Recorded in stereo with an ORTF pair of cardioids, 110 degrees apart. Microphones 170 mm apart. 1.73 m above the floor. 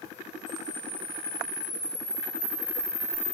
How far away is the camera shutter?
About 1.5 m.